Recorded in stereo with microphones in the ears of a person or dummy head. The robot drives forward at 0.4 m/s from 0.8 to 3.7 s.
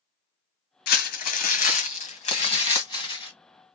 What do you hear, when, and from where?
0.9 s crumpling: 60° left (ahead or behind), 0.8 m; by 3.3 s 25° left (ahead or behind), 1.5 m